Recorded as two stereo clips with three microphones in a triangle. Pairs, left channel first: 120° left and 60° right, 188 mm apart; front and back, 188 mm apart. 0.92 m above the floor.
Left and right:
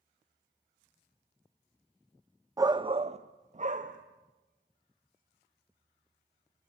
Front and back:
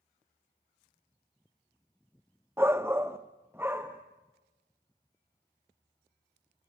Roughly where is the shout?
Behind right.